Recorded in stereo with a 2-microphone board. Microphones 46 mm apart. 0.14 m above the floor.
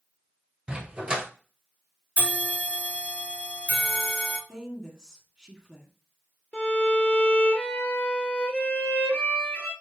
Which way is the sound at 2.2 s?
40° left (ahead or behind).